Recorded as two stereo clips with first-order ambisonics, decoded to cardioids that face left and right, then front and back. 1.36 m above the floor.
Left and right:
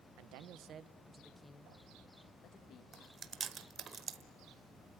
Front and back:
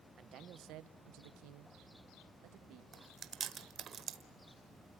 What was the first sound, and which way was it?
A man speaking, 120° right.